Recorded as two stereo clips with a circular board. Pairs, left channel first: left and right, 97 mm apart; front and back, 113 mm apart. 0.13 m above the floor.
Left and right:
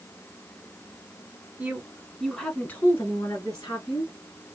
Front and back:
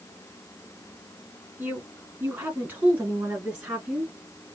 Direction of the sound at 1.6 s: 135° right.